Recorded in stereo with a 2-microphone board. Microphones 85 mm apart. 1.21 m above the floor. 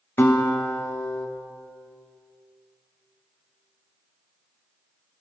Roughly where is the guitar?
Left.